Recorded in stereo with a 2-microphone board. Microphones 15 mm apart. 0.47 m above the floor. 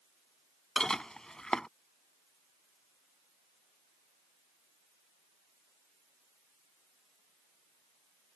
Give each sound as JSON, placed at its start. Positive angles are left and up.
{"t": 0.8, "sound": "dishes clattering", "side_deg": 45}